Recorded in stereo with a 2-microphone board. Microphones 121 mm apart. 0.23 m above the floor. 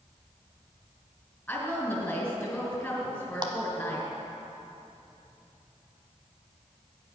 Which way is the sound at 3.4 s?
40° right (ahead or behind).